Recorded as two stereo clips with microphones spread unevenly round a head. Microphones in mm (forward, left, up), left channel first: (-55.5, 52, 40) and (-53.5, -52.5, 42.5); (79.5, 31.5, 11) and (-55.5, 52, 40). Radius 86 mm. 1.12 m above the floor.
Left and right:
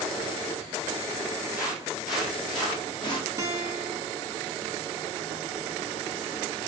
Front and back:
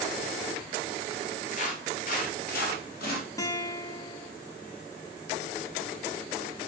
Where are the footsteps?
10° right, 1.3 m; by 3.3 s 5° left, 2.5 m.